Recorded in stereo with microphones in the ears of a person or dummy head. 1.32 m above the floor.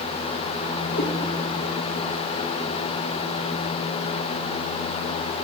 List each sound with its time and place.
0.9 s a cat meowing: 60° left (ahead or behind), 1.2 m